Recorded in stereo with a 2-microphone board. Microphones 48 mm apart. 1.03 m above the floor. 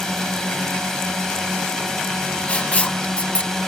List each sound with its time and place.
0.0 s a drone: 10° left (ahead or behind)
2.5 s writing: 25° left (ahead or behind)